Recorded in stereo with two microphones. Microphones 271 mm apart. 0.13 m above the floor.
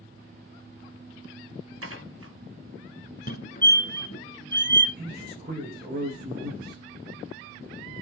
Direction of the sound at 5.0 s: 35° right (ahead or behind).